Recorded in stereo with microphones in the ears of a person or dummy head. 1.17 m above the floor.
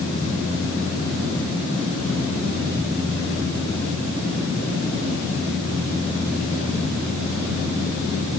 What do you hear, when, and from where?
Only background noise.